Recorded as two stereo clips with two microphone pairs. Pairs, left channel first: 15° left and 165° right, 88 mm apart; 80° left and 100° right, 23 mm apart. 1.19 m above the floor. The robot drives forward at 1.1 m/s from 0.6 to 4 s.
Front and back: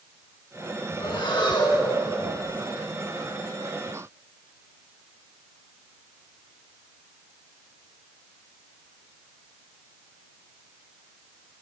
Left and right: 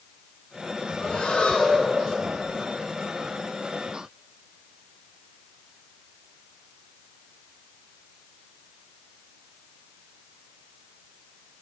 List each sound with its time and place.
1.0 s breathing: 30° left, 1.9 m; by 2.0 s 65° left, 1.2 m